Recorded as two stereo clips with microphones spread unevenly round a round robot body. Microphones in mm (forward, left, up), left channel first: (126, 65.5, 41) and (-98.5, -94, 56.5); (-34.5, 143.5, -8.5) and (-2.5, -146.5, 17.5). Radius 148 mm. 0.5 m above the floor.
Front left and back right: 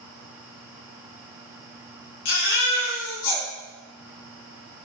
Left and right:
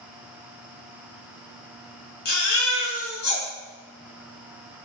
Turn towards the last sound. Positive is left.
turn(degrees=35)